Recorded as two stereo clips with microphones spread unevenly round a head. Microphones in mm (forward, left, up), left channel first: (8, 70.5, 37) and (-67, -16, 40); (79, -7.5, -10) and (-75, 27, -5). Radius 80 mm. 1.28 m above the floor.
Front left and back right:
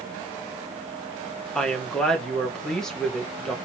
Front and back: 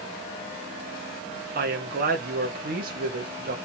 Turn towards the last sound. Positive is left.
turn(degrees=135)